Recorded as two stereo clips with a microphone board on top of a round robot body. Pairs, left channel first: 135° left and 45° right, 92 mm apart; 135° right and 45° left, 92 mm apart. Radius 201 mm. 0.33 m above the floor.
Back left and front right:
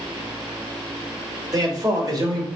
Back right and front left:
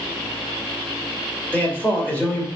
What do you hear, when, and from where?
1.5 s a man speaking: 70° right, 1.7 m